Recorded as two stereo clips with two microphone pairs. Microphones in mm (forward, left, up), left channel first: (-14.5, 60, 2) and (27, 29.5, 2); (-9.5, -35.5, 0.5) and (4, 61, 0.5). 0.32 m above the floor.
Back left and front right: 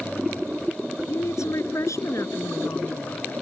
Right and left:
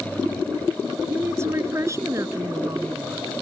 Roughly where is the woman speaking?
Behind left.